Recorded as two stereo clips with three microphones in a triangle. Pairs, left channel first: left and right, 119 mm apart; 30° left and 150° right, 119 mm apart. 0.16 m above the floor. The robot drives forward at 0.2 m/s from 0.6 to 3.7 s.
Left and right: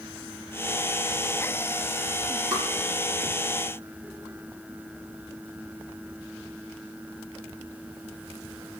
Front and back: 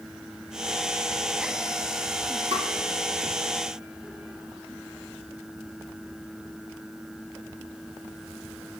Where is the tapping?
175° left, 2 m.